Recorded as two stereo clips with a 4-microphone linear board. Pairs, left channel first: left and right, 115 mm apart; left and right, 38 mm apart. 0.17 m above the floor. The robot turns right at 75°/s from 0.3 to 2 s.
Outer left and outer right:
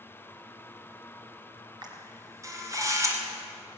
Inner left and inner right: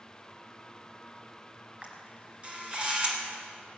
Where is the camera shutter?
40° right (ahead or behind), 2.5 m; by 3.2 s 30° right (ahead or behind), 2.5 m.